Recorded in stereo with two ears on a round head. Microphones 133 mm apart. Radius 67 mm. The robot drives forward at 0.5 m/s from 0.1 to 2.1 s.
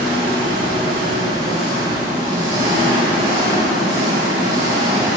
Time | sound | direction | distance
0.0 | an engine running | 40° right (ahead or behind) | 2.5 m